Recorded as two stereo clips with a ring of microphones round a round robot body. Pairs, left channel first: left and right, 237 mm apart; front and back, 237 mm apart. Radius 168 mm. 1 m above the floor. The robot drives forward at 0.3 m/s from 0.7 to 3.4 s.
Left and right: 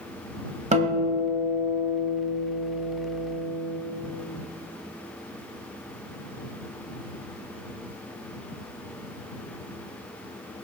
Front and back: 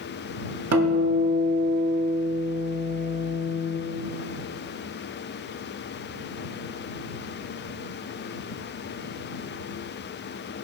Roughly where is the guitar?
Behind right.